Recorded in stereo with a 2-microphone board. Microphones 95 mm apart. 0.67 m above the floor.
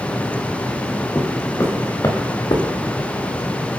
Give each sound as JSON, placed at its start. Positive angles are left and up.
{"t": 1.1, "sound": "footsteps", "side_deg": 25, "distance_m": 4.5}